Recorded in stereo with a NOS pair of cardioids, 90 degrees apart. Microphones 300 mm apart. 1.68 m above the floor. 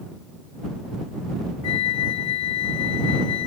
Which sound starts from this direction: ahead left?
A flute, at 1.6 s.